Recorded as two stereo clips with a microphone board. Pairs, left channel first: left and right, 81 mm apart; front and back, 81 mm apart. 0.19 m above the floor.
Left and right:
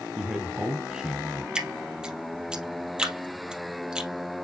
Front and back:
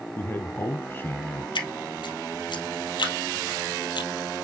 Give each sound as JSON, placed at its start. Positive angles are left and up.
{"t": 0.2, "sound": "a man speaking", "azimuth_deg": -20, "distance_m": 1.1}
{"t": 1.6, "sound": "dripping", "azimuth_deg": -10, "distance_m": 2.5}